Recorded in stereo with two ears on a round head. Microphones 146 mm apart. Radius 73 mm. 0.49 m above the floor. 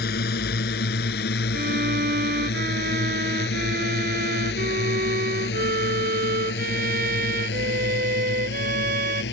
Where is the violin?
60° right (ahead or behind).